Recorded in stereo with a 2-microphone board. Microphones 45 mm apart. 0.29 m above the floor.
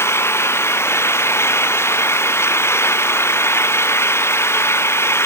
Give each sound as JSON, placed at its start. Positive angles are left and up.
{"t": 0.0, "sound": "an engine running", "side_deg": 70}